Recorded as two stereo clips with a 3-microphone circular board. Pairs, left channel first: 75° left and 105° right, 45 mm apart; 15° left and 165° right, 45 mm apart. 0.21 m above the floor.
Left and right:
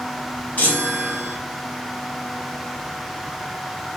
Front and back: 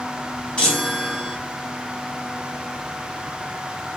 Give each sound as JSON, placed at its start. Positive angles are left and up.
{"t": 0.6, "sound": "a chime", "azimuth_deg": 70, "distance_m": 2.0}